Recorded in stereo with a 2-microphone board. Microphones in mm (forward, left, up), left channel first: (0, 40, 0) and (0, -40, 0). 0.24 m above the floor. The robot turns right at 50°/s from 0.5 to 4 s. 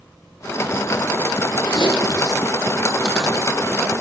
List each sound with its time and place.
1.6 s chewing: 80° left, 3 m; by 3.9 s 35° right (ahead or behind), 3 m